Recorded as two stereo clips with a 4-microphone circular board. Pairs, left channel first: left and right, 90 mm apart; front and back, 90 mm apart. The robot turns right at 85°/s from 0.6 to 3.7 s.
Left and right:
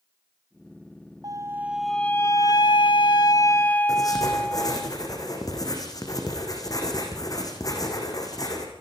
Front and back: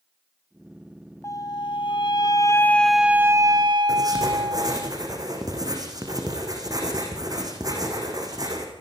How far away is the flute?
About 0.6 m.